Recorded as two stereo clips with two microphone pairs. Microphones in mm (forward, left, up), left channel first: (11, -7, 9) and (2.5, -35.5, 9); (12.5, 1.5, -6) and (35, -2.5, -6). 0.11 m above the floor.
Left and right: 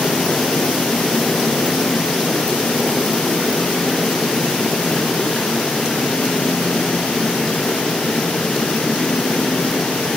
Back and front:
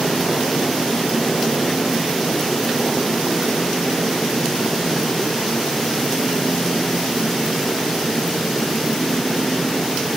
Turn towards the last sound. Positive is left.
No sound to turn to.